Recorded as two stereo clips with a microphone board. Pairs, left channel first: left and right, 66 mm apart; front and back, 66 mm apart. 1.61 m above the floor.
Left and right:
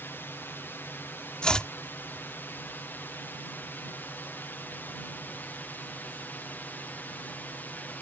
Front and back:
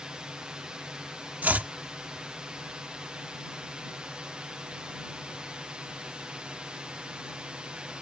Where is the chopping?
150° left.